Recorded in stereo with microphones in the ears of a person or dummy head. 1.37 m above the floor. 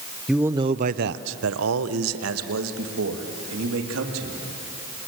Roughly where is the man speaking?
Centre.